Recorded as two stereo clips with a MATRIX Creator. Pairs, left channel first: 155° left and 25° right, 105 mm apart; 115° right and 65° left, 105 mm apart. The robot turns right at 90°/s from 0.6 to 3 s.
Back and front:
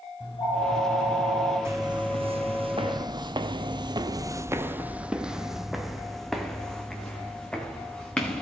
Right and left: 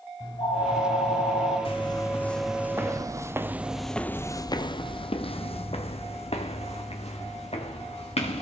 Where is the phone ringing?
155° right, 4.5 m; by 1.6 s 70° right, 4.5 m.